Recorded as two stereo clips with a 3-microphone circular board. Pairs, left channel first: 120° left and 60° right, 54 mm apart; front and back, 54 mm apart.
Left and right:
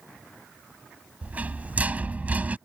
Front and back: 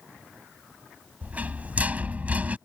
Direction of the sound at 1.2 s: 120° right.